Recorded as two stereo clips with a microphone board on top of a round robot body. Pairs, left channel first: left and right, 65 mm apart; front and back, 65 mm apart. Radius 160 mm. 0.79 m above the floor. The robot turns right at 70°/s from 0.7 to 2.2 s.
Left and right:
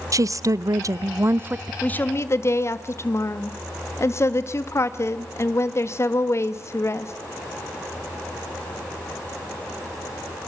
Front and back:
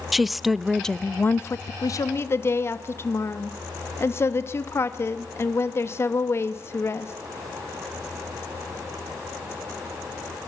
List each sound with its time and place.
0.1 s a woman speaking: 90° right, 0.7 m; by 1.7 s 20° right, 0.7 m
1.8 s a woman speaking: 20° left, 1.5 m; by 7.1 s 45° left, 1.5 m